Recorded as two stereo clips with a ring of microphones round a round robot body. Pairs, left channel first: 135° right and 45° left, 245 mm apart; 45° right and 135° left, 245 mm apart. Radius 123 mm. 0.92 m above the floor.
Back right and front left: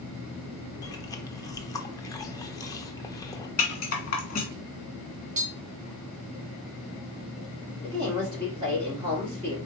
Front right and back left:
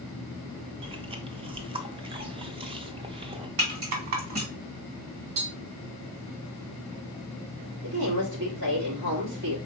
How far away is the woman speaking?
About 2.5 m.